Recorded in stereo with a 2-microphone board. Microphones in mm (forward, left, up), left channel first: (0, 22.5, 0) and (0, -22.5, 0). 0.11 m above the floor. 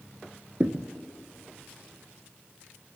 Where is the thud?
35° right (ahead or behind), 0.5 m.